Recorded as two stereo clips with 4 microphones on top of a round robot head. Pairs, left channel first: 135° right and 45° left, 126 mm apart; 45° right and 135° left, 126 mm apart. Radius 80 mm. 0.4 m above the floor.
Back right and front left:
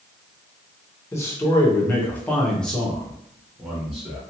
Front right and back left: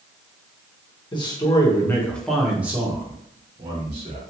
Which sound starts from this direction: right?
A man speaking, at 1.1 s.